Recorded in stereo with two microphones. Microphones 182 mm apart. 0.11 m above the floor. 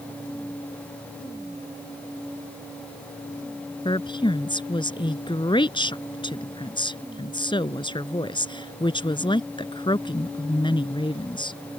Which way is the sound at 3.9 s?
25° left (ahead or behind).